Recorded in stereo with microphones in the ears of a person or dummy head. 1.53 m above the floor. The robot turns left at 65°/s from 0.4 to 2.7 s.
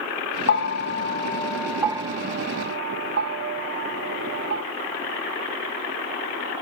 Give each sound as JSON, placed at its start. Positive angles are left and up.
{"t": 0.5, "sound": "a bell", "side_deg": 65, "distance_m": 1.0}